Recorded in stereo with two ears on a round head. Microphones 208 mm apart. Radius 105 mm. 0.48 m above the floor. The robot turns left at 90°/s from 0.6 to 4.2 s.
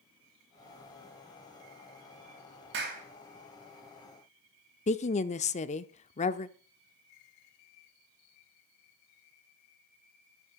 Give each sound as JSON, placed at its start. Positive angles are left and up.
{"t": 2.7, "sound": "a clap", "side_deg": -55, "distance_m": 3.0}
{"t": 4.9, "sound": "a woman speaking", "side_deg": 30, "distance_m": 0.7}